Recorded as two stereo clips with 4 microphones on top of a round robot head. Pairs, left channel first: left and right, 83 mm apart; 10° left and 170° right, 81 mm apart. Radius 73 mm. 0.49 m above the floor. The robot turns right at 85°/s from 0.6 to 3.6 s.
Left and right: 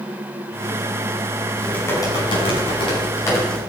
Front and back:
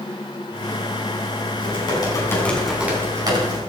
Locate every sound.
1.6 s typing on a keyboard: 5° left, 6 m; by 3.6 s 175° left, 6 m